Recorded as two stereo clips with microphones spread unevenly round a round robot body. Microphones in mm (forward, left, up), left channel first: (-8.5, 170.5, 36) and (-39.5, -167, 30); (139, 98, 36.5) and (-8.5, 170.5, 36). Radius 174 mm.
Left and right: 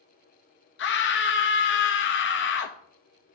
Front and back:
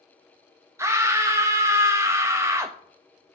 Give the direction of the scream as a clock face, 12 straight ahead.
9 o'clock.